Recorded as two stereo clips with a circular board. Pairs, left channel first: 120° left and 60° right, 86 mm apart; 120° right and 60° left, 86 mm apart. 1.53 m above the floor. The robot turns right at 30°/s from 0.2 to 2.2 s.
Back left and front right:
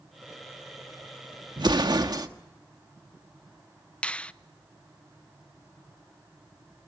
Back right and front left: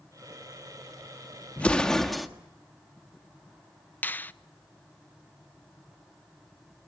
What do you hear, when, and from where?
1.6 s an explosion: 50° right, 1.5 m; by 2.3 s 30° right, 1.5 m
4.0 s a finger snap: 170° right, 0.5 m